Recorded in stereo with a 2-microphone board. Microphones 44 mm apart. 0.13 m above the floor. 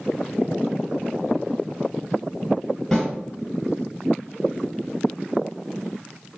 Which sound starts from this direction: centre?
A snare drum, at 2.9 s.